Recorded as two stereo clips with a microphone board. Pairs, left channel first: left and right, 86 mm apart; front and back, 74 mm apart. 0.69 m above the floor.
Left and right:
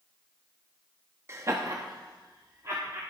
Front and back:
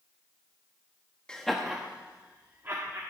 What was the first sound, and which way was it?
Laughter, 70° right.